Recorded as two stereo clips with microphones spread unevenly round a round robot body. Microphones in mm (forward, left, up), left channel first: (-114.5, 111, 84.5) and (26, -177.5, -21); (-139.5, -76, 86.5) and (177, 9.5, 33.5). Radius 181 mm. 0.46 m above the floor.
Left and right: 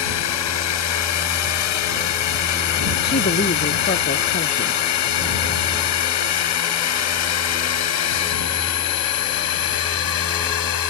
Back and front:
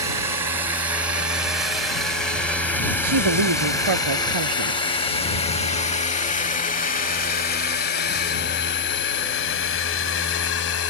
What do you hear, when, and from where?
0.0 s a drone: 95° left; by 10.9 s 145° left
3.0 s a woman speaking: 50° left